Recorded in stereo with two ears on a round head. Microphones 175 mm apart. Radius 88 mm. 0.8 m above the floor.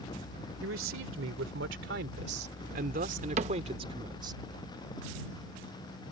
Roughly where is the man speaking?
Right.